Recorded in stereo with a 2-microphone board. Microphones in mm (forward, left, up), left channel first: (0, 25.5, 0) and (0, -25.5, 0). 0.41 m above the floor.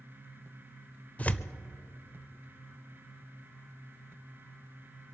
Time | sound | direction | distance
1.2 | tearing paper | 25° left (ahead or behind) | 0.6 m